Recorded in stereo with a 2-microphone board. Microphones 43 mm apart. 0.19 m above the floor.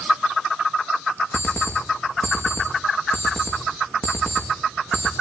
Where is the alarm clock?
30° left (ahead or behind), 6 m.